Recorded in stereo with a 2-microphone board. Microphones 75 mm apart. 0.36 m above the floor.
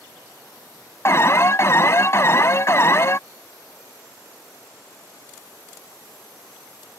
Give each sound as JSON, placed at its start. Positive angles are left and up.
{"t": 1.1, "sound": "an alarm", "side_deg": 40}